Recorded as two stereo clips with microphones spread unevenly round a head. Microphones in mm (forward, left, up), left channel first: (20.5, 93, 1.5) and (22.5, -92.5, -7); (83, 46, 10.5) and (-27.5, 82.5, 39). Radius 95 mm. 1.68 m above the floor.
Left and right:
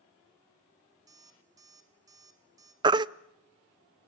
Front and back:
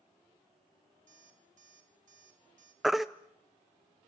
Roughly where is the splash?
No splash in this recording.